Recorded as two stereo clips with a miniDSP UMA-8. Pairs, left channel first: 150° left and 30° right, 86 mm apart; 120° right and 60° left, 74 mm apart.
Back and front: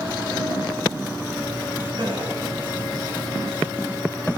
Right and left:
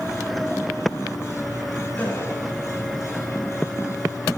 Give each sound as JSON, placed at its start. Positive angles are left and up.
{"t": 2.0, "sound": "a gasp", "azimuth_deg": -55, "distance_m": 4.0}